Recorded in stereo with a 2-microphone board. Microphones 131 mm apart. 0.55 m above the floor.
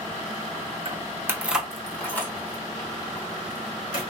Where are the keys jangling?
35° right (ahead or behind), 0.6 m; by 4.0 s 30° left (ahead or behind), 1.9 m.